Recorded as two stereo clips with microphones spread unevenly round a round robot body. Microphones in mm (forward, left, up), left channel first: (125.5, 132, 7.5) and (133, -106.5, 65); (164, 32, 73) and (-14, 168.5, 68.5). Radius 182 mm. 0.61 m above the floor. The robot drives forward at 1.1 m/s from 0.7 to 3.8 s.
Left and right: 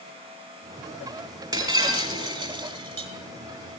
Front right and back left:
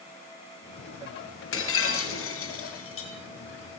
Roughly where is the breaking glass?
Ahead.